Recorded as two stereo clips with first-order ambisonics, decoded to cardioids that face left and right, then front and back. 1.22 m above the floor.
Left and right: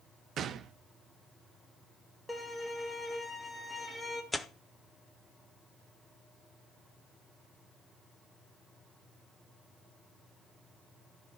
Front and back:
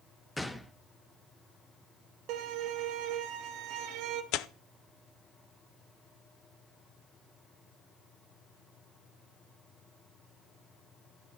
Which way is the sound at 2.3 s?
175° left.